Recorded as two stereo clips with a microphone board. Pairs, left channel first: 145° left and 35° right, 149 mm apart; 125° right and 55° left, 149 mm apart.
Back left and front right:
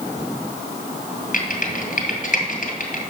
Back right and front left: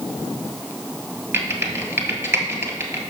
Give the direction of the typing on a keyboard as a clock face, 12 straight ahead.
8 o'clock.